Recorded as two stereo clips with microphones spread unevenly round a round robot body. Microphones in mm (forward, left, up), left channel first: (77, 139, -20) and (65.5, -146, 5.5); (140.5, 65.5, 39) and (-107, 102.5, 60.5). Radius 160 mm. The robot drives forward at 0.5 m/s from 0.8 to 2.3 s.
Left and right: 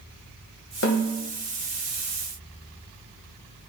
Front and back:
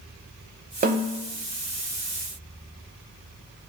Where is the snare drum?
120° left, 2.5 m.